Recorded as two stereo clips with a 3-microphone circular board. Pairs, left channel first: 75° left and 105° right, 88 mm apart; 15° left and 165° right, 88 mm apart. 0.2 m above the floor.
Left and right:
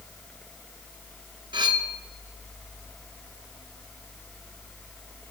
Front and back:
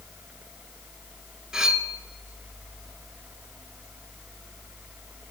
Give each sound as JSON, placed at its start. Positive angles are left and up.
{"t": 1.5, "sound": "cutlery clinking", "azimuth_deg": -85, "distance_m": 1.4}